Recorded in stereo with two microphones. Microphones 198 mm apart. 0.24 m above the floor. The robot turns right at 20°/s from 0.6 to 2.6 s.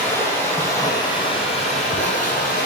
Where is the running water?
15° left, 0.9 m; by 2.7 s 55° left, 0.9 m.